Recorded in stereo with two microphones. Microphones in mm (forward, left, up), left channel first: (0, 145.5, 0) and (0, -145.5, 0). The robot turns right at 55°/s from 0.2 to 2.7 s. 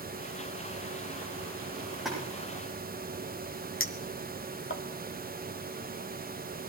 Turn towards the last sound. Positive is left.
turn(degrees=45)  # may be behind; listen again after turning